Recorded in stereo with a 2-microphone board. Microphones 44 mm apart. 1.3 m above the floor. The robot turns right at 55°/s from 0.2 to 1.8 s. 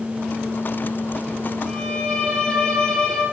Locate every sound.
1.7 s a violin: 5° left (ahead or behind), 6.5 m; by 3.2 s 15° left (ahead or behind), 6.5 m